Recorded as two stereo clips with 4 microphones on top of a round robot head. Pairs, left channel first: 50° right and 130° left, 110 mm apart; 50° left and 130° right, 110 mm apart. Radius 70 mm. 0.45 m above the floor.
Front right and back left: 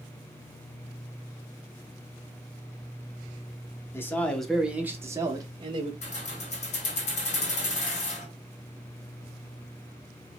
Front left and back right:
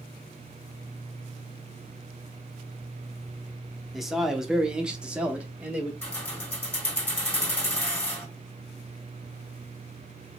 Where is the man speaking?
45° right, 0.7 m; by 5.9 s 150° left, 1.0 m.